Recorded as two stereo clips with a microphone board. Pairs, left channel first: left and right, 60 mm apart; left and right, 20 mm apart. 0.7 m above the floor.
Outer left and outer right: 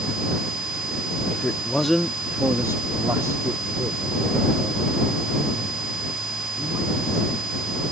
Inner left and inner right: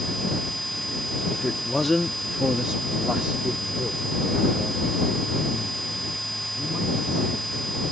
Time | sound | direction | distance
1.3 | a man speaking | 25° left (ahead or behind) | ?